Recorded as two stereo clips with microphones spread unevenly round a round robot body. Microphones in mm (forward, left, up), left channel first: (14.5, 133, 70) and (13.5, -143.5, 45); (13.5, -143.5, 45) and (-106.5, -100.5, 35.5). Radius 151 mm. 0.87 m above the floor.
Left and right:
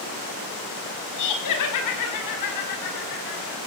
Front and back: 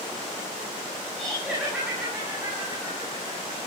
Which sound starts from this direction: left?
Laughter, at 1.2 s.